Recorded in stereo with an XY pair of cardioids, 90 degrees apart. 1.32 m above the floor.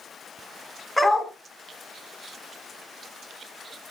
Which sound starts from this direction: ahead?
A dog barking, at 1.0 s.